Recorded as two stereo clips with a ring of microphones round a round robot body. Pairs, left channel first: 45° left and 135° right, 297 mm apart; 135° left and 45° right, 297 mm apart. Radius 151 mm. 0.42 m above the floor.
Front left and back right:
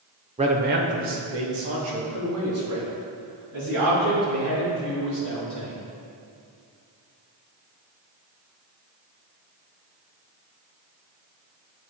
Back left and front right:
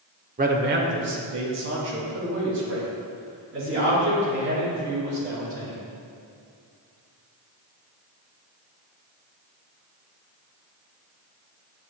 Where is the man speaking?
80° right, 0.9 m; by 5.8 s 95° right, 8 m.